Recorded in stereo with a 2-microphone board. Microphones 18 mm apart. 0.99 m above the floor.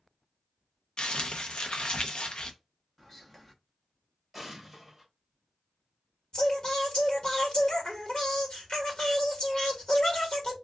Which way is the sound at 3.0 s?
15° left (ahead or behind).